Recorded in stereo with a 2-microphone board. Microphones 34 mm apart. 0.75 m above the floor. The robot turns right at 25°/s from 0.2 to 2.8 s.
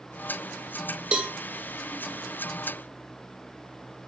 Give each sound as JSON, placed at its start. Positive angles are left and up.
{"t": 1.1, "sound": "a cowbell", "side_deg": -25, "distance_m": 0.7}